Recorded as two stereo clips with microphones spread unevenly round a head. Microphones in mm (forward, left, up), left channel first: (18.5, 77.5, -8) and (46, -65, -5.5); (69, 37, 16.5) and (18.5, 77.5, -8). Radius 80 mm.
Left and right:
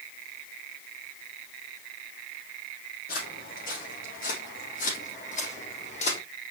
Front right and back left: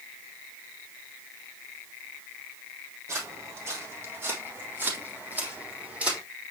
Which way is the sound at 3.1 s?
95° left.